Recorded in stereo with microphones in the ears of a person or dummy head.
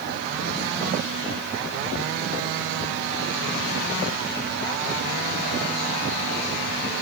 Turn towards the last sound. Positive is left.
No sound to turn to.